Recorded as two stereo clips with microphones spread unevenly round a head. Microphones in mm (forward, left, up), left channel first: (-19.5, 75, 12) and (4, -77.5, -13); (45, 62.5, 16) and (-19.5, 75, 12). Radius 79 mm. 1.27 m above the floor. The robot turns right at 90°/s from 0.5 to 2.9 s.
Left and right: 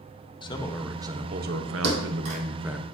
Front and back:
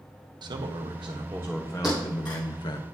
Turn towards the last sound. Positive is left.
turn(degrees=-10)